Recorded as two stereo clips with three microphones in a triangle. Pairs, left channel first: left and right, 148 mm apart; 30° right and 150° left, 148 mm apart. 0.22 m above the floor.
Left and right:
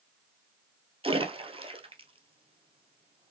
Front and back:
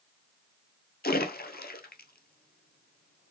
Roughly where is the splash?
Ahead right.